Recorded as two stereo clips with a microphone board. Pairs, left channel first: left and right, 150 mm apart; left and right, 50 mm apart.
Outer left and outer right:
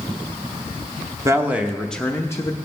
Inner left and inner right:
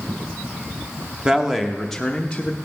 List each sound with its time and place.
1.2 s a man speaking: 20° right (ahead or behind), 0.8 m; by 2.5 s 25° left (ahead or behind), 0.9 m